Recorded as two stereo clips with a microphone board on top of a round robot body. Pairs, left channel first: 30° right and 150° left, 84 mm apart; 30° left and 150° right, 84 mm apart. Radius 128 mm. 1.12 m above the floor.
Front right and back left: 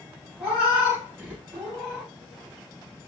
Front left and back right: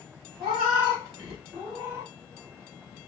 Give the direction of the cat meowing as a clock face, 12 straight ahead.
4 o'clock.